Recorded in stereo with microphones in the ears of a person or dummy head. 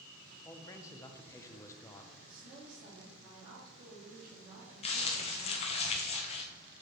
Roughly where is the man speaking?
Centre.